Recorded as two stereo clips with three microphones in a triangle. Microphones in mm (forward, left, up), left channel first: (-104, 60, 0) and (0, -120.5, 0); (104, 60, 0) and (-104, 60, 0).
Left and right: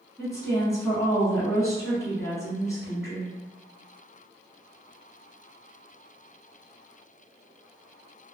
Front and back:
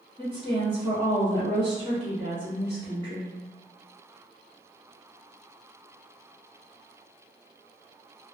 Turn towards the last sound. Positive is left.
turn(degrees=175)